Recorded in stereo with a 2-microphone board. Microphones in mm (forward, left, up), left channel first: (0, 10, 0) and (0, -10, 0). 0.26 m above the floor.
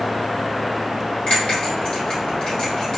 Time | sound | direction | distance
1.3 | a bell | 50° left (ahead or behind) | 1.9 m